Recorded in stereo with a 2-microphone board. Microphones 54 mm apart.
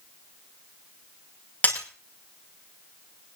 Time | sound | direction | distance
1.6 | breaking glass | 30° left (ahead or behind) | 5.5 m